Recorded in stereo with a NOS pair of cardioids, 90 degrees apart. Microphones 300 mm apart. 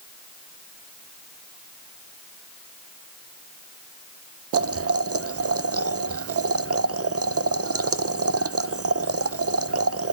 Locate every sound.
4.5 s boiling: 55° right, 0.7 m